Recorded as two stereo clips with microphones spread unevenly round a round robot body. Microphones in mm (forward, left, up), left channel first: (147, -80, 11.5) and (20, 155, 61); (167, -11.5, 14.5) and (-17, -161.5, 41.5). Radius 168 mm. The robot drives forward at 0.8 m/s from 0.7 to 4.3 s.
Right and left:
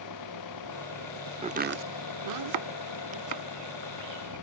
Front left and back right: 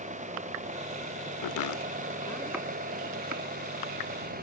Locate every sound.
0.0 s an engine running: 80° right; by 4.4 s 90° right
1.4 s chopping: 50° left; by 4.3 s 165° left